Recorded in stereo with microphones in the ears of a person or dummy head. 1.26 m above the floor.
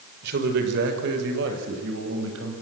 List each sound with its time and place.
0.2 s a man speaking: 55° right (ahead or behind), 4 m; by 2.5 s 70° right (ahead or behind), 6.5 m